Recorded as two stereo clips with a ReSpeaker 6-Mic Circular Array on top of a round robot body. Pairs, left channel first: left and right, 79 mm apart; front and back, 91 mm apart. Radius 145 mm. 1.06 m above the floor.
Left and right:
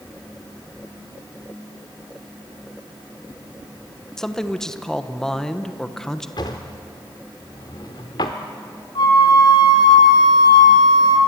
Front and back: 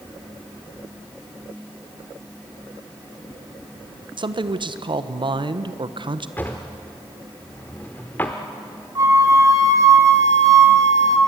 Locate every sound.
4.2 s a man speaking: 175° left, 1.3 m
6.4 s a drawer: 70° left, 0.8 m
8.9 s a flute: 125° left, 3 m